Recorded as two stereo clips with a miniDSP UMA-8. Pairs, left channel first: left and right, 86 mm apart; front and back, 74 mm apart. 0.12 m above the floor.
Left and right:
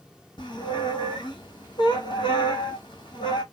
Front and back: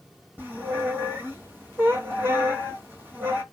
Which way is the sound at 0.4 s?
120° left.